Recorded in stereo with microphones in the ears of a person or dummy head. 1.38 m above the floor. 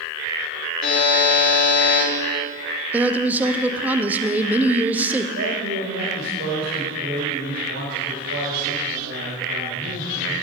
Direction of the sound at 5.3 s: 75° right (ahead or behind).